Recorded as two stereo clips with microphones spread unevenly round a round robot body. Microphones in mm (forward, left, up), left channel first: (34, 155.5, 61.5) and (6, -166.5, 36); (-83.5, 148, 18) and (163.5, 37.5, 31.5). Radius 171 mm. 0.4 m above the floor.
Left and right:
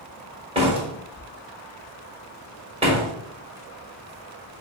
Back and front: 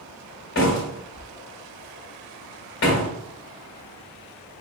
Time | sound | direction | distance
0.6 | a door slam | 165° right | 1.5 m